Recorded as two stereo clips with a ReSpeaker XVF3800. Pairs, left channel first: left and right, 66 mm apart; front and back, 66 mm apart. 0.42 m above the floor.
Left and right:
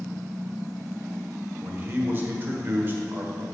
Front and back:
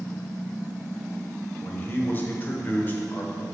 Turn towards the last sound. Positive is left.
turn(degrees=-45)